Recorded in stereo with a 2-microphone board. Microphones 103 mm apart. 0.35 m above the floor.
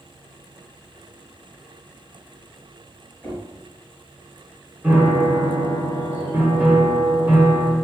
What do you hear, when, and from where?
3.2 s knocking: 15° left (ahead or behind), 1.5 m
4.8 s a piano: 15° right (ahead or behind), 1.2 m